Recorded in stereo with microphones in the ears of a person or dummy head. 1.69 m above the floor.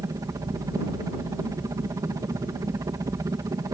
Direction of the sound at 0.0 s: 20° right (ahead or behind).